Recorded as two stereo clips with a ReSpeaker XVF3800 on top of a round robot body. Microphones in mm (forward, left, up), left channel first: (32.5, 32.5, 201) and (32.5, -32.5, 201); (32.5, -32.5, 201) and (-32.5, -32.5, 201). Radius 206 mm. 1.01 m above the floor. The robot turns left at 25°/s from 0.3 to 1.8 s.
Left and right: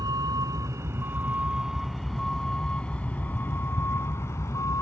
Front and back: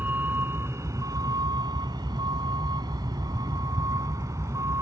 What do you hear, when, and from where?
0.0 s a vehicle: 120° right; by 4.8 s 135° left